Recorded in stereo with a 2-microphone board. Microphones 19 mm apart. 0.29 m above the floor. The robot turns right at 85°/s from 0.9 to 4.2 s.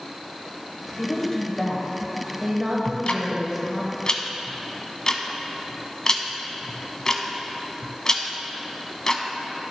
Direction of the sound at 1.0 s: 25° left (ahead or behind).